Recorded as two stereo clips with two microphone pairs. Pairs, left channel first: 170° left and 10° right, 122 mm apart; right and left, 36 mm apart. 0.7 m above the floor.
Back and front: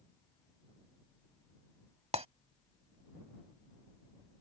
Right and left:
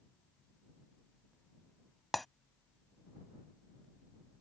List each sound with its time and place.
2.1 s breaking glass: 5° right